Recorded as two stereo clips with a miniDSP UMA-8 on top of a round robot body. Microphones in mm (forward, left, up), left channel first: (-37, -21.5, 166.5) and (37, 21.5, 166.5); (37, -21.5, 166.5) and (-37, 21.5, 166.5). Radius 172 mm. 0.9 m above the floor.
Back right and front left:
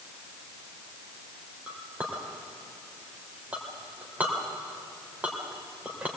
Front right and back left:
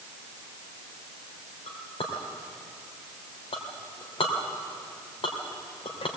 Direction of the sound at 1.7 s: 45° right.